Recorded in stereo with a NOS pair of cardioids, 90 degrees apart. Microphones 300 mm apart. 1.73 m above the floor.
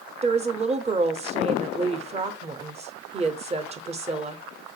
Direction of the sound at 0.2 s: 20° right.